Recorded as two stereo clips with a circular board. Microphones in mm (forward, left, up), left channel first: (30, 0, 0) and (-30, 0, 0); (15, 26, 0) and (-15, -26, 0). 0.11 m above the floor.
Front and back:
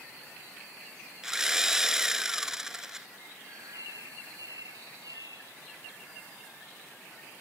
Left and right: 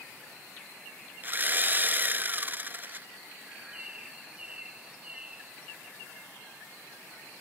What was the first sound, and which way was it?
Sawing, 110° right.